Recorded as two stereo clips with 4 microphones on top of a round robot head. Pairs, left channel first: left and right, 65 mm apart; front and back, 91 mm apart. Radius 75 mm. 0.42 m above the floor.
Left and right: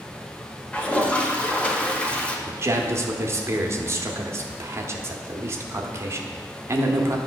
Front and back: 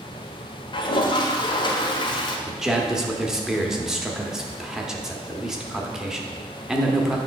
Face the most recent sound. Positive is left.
turn(degrees=-100)